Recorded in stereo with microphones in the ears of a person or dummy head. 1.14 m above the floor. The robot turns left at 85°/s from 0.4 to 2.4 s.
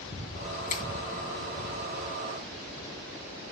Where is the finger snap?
40° left (ahead or behind), 1.3 m; by 0.8 s 55° left (ahead or behind), 1.3 m.